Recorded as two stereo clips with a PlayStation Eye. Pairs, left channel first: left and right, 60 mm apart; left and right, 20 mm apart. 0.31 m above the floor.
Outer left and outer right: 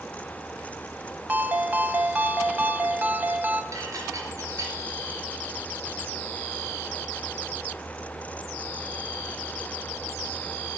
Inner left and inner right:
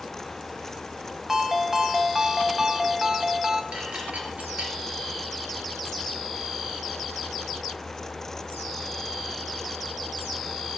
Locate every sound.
1.3 s a ringtone: 30° right (ahead or behind), 1.2 m
3.7 s dishes clattering: 70° right (ahead or behind), 3.5 m